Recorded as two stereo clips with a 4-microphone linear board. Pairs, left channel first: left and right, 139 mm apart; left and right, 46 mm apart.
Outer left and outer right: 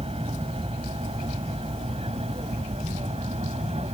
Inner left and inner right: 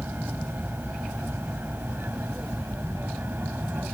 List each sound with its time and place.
0.0 s an aircraft: 45° right (ahead or behind)